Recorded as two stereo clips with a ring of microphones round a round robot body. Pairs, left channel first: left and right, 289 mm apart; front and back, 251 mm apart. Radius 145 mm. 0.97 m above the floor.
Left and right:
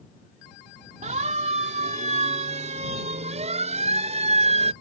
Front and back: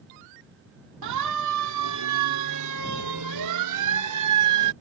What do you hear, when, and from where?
1.0 s a siren: 155° right; by 4.7 s 160° right